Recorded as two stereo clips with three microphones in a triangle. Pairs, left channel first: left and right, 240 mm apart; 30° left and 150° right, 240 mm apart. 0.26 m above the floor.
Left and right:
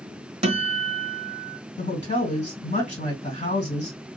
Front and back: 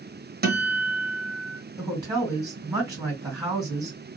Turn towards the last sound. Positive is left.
turn(degrees=140)